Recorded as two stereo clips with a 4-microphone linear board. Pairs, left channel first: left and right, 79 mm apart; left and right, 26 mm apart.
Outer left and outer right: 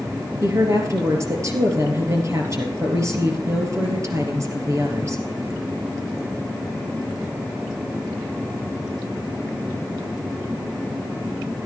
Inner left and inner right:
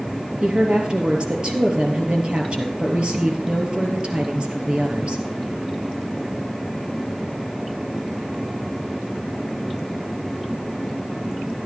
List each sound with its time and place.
0.4 s a woman speaking: 40° right (ahead or behind), 3 m